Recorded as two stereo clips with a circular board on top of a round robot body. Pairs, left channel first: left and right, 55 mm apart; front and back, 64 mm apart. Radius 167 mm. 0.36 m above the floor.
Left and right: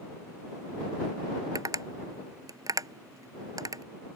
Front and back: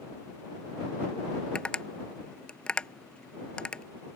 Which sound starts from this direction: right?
Tapping, at 1.6 s.